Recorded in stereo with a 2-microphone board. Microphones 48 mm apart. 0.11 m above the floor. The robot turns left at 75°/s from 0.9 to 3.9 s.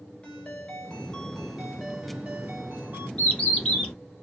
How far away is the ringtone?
About 1.1 m.